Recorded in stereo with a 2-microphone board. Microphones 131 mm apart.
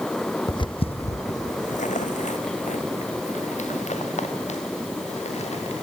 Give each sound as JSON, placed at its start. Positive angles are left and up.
{"t": 0.5, "sound": "footsteps", "side_deg": 35, "distance_m": 0.7}